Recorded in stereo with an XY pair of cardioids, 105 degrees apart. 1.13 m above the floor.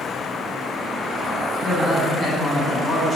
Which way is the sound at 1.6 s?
25° left.